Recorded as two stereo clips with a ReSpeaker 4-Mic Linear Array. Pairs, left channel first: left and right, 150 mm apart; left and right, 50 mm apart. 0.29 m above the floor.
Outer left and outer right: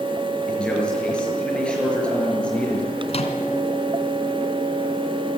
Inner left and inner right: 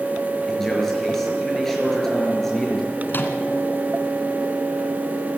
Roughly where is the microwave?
Left.